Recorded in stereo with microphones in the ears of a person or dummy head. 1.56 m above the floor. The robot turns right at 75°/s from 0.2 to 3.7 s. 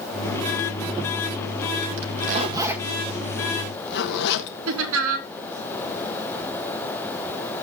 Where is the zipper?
65° right (ahead or behind), 1.5 m; by 4.6 s 60° left (ahead or behind), 1.5 m.